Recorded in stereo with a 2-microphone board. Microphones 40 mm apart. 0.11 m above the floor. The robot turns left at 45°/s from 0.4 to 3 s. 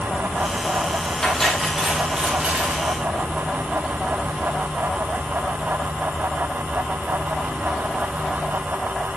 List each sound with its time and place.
1.2 s cutlery clinking: 20° left, 1.9 m; by 2.9 s 55° right, 1.9 m